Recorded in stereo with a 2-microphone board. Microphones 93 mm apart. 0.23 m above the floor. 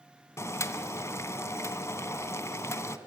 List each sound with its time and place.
0.4 s boiling: 30° left (ahead or behind), 0.7 m